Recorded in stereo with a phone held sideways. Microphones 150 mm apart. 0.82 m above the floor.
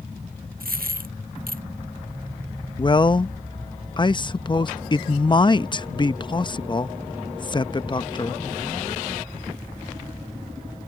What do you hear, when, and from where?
0.6 s a dropped coin: 75° right (ahead or behind)
2.8 s a man speaking: 30° left (ahead or behind)